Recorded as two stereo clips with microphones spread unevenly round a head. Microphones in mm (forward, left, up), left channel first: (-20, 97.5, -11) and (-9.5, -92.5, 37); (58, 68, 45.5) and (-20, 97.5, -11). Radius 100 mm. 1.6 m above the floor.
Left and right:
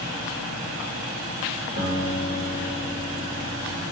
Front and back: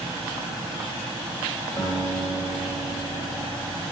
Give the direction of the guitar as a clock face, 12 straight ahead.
1 o'clock.